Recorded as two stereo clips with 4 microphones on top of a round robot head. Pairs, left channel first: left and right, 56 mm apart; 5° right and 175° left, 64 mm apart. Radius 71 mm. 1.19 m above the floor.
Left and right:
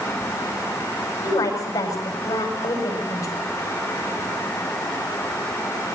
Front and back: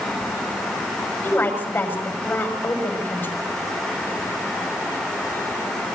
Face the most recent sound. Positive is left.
turn(degrees=55)